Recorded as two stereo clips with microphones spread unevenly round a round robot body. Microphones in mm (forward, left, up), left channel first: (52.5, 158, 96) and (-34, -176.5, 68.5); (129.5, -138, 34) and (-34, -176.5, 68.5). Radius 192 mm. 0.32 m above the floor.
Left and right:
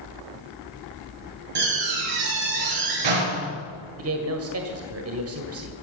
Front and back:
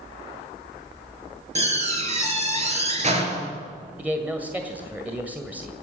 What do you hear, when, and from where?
1.6 s a door slam: 120° right, 5.5 m
4.0 s a man speaking: 80° right, 1.9 m